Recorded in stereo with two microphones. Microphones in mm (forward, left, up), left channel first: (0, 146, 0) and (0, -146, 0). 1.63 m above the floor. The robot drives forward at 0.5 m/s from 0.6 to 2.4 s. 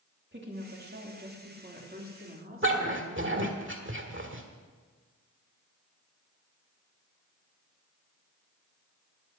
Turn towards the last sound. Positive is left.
turn(degrees=-40)  # may be behind; listen again after turning